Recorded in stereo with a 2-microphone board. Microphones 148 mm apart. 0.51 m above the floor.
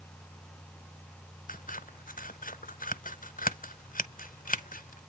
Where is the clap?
I don't hear a clap.